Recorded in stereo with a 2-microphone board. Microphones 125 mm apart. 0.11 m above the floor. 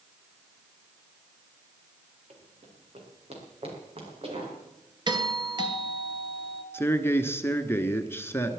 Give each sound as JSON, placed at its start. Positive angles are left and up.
{"t": 2.3, "sound": "running footsteps", "side_deg": -60, "distance_m": 4.5}
{"t": 5.1, "sound": "a doorbell", "side_deg": -35, "distance_m": 1.9}
{"t": 6.7, "sound": "a man speaking", "side_deg": 20, "distance_m": 1.4}